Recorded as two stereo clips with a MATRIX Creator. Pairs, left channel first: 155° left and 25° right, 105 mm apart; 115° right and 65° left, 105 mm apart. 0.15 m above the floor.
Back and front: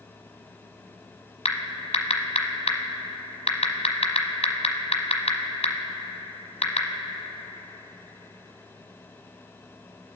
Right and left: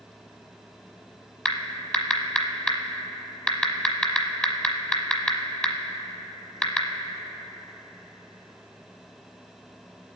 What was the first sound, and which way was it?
Typing on a keyboard, 165° left.